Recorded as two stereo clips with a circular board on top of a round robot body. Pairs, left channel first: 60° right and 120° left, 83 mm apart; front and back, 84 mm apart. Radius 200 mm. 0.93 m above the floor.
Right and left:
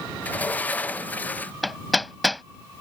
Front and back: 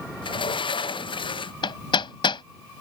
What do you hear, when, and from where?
0.2 s a sliding door: 10° left
1.6 s hammering: 30° left